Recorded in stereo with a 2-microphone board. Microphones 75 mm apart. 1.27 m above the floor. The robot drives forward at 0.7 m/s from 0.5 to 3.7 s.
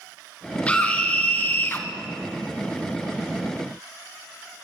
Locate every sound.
0.7 s a scream: 20° left (ahead or behind), 2 m; by 1.9 s 30° left (ahead or behind), 1.3 m